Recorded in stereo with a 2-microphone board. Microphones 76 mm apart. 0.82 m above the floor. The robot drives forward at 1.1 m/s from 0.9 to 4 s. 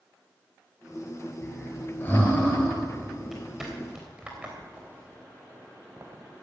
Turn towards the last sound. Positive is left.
turn(degrees=-45)  # may be behind; listen again after turning